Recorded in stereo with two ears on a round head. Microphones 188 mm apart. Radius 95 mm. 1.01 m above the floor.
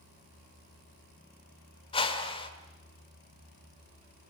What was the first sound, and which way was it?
A whoosh, 25° left (ahead or behind).